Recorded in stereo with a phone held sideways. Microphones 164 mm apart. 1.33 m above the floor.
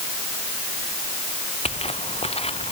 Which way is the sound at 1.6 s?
40° left (ahead or behind).